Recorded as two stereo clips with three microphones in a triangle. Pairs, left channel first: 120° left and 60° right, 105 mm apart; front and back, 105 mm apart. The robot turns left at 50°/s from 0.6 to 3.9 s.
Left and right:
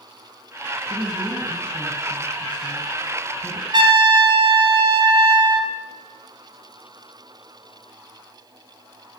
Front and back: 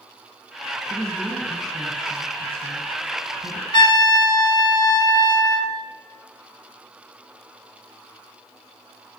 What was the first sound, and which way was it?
A woman speaking, 85° right.